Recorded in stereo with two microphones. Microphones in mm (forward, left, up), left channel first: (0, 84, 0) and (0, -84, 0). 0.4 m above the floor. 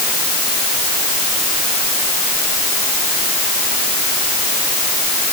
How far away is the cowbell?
I don't hear a cowbell.